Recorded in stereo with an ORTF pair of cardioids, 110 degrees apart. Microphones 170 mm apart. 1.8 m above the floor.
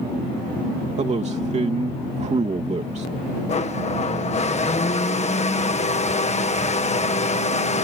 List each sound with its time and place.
1.0 s a man speaking: 40° right
3.5 s a blender: 40° left